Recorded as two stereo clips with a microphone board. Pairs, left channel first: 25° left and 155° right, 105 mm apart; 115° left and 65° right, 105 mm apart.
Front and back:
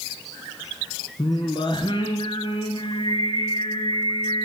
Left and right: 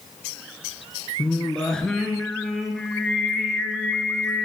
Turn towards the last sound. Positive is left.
turn(degrees=30)